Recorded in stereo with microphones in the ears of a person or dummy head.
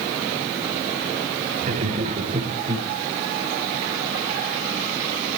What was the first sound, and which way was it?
Laughter, 50° right (ahead or behind).